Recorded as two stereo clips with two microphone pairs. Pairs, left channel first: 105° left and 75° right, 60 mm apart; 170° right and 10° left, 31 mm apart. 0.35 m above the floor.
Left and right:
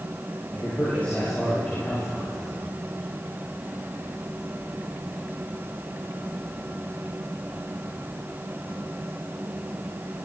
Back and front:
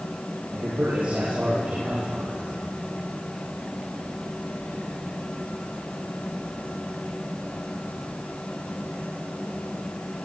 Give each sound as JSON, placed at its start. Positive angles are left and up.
{"t": 0.5, "sound": "a man speaking", "azimuth_deg": 45, "distance_m": 10.0}